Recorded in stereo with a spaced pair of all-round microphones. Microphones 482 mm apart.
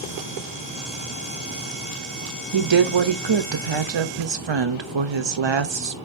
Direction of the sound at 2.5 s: 65° right (ahead or behind).